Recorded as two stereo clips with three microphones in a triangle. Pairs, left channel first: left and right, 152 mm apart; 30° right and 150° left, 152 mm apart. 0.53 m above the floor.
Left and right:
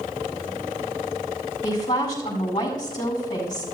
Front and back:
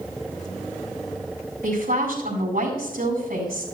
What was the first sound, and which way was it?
A woman speaking, 150° left.